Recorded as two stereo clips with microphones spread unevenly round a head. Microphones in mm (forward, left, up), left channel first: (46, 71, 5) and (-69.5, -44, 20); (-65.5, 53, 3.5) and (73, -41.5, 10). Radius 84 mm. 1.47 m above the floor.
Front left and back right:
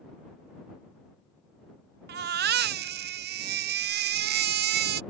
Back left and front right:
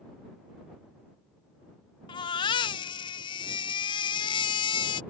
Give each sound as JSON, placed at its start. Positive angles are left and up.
{"t": 2.1, "sound": "a baby crying", "azimuth_deg": -150}